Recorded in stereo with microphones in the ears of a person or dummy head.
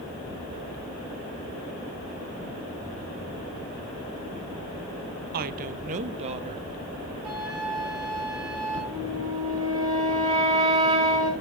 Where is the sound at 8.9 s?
25° right (ahead or behind), 6 m.